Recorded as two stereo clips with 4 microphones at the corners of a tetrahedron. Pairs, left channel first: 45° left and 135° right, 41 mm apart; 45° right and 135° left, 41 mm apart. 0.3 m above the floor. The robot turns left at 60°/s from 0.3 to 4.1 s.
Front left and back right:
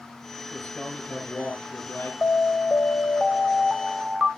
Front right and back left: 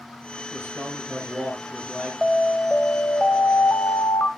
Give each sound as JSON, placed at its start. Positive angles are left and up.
{"t": 0.5, "sound": "a man speaking", "azimuth_deg": 130, "distance_m": 5.5}
{"t": 2.2, "sound": "an alarm", "azimuth_deg": 55, "distance_m": 0.7}